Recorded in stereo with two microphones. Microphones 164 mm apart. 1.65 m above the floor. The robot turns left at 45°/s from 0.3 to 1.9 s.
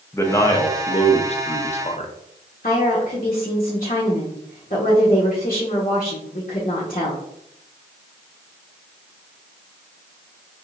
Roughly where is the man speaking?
Behind left.